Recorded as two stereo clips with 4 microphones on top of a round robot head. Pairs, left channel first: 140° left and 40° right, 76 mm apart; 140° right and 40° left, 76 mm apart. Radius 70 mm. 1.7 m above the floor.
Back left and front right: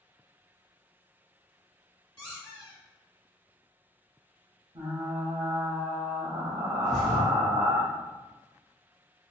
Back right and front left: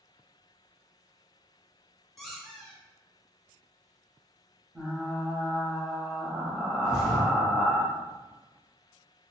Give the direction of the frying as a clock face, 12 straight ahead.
1 o'clock.